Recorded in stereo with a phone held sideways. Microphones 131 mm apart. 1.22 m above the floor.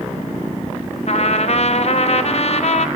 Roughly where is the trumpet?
Left.